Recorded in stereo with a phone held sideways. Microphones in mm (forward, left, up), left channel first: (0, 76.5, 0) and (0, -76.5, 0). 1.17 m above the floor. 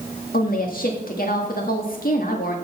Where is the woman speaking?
70° left (ahead or behind), 1.7 m.